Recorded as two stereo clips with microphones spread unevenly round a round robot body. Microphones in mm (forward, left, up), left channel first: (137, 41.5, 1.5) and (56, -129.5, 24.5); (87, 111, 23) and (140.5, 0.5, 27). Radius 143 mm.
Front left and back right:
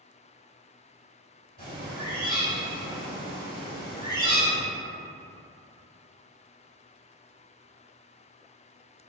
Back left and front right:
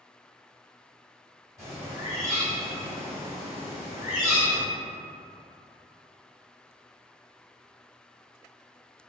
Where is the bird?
Straight behind, 1.7 m.